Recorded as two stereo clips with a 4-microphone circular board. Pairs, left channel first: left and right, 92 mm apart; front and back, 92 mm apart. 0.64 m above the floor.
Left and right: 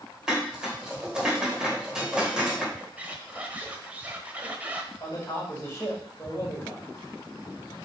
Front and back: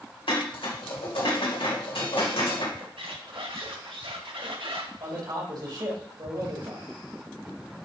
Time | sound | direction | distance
0.3 | dishes clattering | 10° right | 2.0 m
2.8 | a squeak | 165° right | 1.1 m
5.0 | a man speaking | 150° left | 3.5 m